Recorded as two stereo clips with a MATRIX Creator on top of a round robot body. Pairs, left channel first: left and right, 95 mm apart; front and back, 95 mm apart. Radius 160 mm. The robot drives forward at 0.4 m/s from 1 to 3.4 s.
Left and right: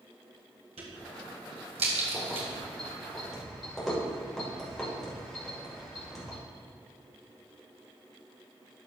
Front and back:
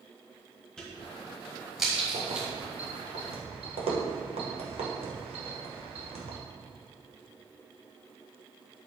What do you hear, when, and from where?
0.8 s a crack: 80° right, 1.9 m; by 2.5 s 100° right, 1.9 m
2.1 s keys jangling: 175° left, 1.7 m; by 6.4 s straight behind, 2 m